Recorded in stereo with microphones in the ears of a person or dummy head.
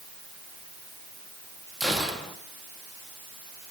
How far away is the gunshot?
About 2 m.